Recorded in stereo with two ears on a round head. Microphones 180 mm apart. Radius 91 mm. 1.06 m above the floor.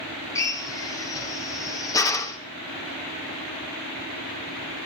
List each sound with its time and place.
0.3 s a drill: 15° left (ahead or behind), 2 m